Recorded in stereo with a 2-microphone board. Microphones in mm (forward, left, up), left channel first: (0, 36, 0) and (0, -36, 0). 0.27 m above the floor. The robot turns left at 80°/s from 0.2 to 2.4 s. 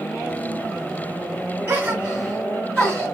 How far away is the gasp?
About 2 m.